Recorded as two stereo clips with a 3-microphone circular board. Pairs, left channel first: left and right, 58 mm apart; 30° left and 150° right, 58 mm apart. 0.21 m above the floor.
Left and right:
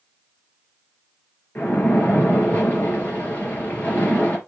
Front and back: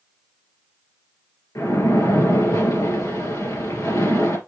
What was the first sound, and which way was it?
A splash, 35° left.